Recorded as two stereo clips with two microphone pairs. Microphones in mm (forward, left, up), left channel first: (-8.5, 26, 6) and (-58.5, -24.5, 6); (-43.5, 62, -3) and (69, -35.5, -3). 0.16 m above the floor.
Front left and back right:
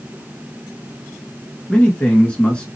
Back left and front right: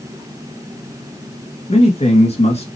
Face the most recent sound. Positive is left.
turn(degrees=115)